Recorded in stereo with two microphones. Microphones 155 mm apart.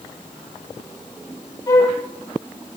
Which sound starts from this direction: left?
A flute, at 1.7 s.